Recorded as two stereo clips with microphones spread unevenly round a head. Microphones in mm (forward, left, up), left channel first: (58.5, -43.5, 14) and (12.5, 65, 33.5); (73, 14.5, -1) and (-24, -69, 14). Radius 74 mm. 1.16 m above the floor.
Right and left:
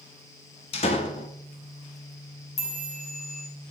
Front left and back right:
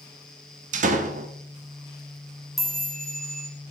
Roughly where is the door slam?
Right.